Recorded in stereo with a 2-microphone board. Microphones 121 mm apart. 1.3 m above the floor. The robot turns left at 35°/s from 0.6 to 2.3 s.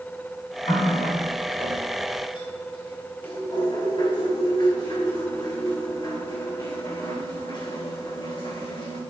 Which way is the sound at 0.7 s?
75° left (ahead or behind).